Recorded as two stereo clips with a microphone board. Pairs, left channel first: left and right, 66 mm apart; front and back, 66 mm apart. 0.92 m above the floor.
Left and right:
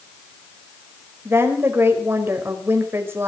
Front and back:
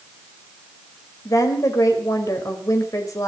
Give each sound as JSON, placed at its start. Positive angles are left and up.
{"t": 1.2, "sound": "a woman speaking", "azimuth_deg": -35, "distance_m": 4.5}